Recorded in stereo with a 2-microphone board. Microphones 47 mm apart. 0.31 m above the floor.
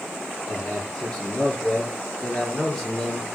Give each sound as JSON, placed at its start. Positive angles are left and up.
{"t": 0.5, "sound": "a man speaking", "side_deg": 20, "distance_m": 7.0}